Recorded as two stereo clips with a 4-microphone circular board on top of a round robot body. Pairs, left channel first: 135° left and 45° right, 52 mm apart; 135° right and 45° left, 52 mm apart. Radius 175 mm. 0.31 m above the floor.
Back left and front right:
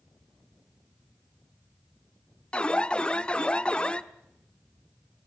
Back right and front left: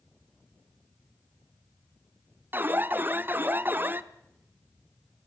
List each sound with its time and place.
2.5 s an alarm: 75° left, 1.2 m